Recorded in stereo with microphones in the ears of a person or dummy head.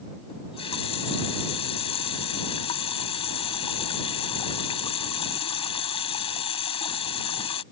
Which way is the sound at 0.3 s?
30° left (ahead or behind).